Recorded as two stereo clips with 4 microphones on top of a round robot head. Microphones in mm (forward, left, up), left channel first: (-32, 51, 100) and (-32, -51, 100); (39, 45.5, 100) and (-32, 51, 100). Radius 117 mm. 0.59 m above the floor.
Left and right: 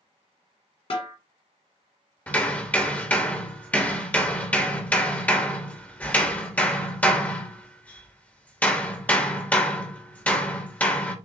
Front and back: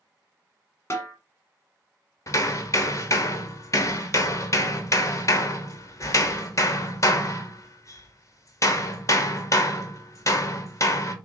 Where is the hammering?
20° left, 1.3 m.